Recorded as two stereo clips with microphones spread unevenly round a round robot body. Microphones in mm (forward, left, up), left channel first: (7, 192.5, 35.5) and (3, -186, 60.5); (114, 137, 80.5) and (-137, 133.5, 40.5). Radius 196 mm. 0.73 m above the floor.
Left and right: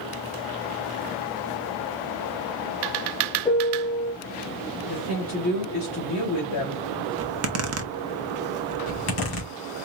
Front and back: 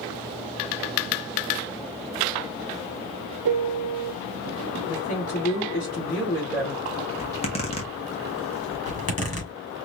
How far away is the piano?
About 0.7 m.